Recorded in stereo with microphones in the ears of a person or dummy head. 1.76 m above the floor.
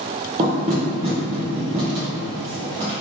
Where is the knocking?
20° right (ahead or behind), 0.6 m.